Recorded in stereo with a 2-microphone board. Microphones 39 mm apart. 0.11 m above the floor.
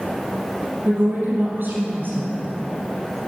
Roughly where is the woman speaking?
Right.